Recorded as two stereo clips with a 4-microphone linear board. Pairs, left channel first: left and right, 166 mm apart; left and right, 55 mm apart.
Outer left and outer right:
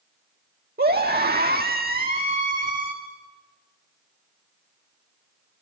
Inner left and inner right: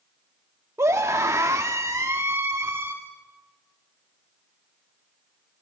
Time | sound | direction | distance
0.8 | a scream | 75° right (ahead or behind) | 1.4 m